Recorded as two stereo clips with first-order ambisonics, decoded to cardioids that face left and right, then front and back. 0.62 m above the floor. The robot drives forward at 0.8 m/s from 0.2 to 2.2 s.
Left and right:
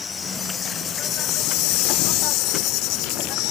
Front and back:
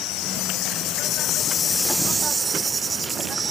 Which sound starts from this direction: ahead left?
An insect, at 0.0 s.